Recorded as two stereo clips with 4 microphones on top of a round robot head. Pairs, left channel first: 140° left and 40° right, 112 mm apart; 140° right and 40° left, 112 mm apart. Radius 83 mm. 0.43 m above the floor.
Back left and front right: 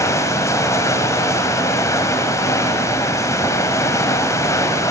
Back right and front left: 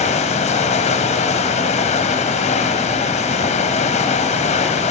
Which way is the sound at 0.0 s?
155° right.